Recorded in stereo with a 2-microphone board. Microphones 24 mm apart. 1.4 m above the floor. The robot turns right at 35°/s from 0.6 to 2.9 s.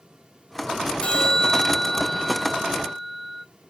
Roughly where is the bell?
Behind left.